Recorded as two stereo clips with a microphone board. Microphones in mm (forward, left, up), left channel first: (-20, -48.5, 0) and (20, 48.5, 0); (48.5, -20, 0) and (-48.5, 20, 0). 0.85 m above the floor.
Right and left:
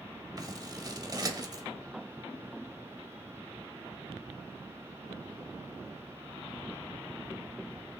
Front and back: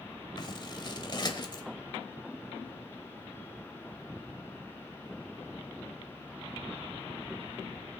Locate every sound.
0.4 s scissors: 20° left, 1.2 m